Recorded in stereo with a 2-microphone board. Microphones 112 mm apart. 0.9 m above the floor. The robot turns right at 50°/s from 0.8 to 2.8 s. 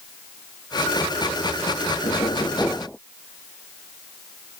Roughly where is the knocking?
Behind left.